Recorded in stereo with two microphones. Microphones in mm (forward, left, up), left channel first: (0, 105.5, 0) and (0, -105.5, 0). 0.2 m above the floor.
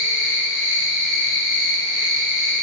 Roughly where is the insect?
Left.